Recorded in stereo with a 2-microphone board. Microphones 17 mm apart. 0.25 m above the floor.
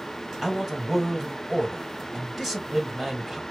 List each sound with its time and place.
0.4 s a man speaking: 20° right (ahead or behind), 1.8 m